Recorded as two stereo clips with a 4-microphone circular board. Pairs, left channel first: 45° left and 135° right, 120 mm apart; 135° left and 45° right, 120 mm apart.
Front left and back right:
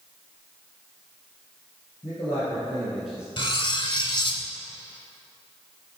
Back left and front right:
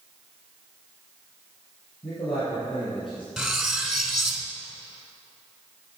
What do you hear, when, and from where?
2.0 s a man speaking: 95° left, 2 m; by 3.3 s 145° left, 1.7 m
3.4 s cutlery clinking: 40° left, 0.8 m